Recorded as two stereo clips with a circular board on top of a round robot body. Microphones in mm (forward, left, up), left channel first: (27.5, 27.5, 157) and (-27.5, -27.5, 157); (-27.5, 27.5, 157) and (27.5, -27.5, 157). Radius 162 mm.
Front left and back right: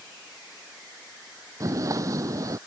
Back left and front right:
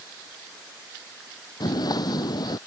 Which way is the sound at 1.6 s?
175° left.